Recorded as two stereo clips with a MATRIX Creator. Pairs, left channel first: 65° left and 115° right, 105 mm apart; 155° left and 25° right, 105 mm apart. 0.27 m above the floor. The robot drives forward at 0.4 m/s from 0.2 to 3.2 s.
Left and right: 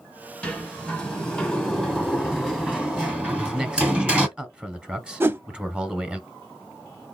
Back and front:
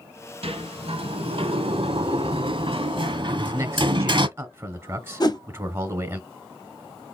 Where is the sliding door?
15° right, 1.8 m; by 4.3 s 35° right, 0.9 m.